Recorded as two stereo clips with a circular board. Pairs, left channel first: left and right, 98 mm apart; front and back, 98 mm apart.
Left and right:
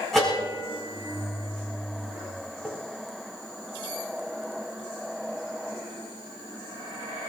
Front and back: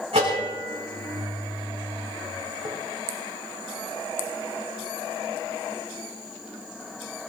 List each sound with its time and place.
0.1 s a bell: straight behind, 5 m